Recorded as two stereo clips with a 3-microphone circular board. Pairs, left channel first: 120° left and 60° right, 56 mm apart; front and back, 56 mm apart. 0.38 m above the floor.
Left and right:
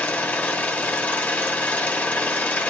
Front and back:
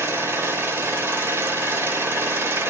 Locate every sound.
0.0 s an engine running: 165° left, 1.2 m